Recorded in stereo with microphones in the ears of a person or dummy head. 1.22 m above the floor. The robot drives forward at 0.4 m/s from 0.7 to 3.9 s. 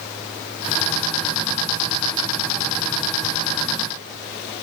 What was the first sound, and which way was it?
Only background noise.